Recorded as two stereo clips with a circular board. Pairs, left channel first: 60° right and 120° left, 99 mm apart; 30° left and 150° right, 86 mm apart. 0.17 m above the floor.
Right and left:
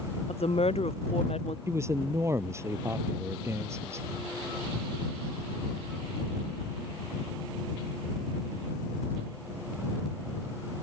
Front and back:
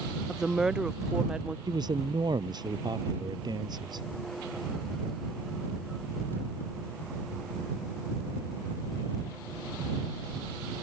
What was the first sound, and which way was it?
A woman speaking, 65° right.